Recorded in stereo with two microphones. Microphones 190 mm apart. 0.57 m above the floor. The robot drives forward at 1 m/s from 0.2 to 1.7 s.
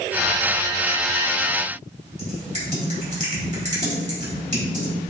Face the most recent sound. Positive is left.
turn(degrees=-40)  # may be behind; listen again after turning